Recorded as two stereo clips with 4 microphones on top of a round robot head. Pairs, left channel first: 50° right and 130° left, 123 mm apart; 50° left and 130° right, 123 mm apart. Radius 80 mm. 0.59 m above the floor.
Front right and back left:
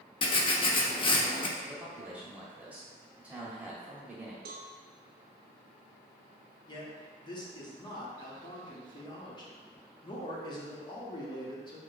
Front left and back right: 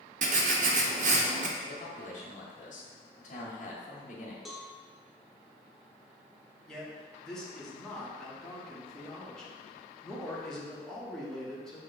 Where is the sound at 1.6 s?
55° left, 1.3 m.